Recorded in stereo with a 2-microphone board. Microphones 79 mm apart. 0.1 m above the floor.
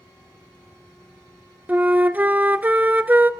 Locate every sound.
1.7 s a flute: 25° right (ahead or behind), 0.6 m